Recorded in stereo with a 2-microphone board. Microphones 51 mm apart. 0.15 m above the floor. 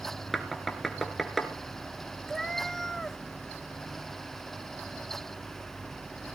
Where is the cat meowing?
10° left (ahead or behind), 0.9 m.